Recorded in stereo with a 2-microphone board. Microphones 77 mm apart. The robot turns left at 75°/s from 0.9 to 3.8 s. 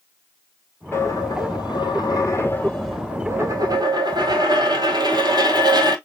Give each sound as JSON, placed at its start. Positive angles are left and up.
{"t": 0.9, "sound": "a dropped coin", "azimuth_deg": 145, "distance_m": 1.6}